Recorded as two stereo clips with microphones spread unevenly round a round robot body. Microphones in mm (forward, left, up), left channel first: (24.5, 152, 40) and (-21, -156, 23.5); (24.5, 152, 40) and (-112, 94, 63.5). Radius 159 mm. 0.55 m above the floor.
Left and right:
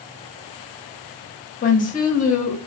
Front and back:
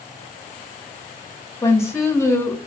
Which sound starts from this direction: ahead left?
A woman speaking, at 1.6 s.